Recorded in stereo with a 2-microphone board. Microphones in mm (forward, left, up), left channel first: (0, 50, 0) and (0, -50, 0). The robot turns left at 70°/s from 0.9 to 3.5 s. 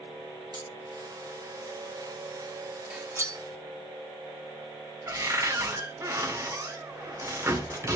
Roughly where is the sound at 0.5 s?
Right.